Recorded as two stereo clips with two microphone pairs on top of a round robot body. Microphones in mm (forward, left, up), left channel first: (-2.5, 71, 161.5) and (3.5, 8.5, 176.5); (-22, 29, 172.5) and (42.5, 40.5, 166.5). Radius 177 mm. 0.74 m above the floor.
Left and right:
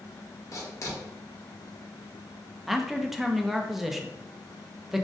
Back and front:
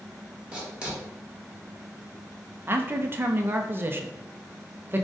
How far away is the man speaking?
About 0.6 m.